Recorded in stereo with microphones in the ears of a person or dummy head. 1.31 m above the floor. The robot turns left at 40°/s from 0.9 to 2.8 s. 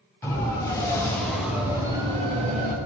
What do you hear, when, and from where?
0.2 s a siren: 15° left (ahead or behind), 7.5 m; by 2.8 s 45° right (ahead or behind), 4.5 m